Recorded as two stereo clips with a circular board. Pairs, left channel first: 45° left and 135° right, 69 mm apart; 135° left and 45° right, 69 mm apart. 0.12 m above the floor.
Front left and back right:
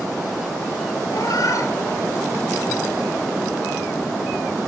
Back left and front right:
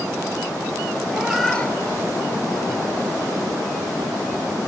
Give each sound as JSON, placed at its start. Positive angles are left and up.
{"t": 1.1, "sound": "a cat meowing", "azimuth_deg": 25, "distance_m": 1.1}